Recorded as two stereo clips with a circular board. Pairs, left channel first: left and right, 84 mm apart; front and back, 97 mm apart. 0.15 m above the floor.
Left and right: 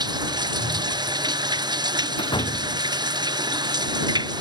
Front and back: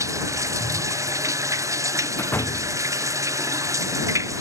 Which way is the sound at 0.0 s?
125° right.